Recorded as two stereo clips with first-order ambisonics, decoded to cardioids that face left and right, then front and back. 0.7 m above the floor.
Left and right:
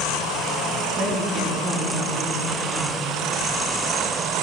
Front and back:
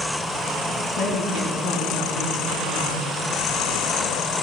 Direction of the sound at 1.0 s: 35° right.